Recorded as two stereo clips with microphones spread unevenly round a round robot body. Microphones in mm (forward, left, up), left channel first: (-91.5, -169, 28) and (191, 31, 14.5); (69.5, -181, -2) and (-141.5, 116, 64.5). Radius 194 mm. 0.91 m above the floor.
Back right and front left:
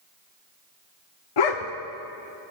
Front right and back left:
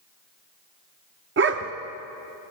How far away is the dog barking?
About 0.8 m.